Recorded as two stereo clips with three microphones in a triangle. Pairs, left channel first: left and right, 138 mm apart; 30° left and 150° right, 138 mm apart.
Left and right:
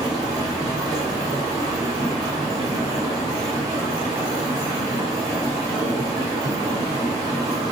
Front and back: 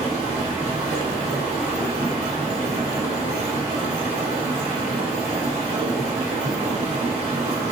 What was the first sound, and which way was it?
Running water, 145° right.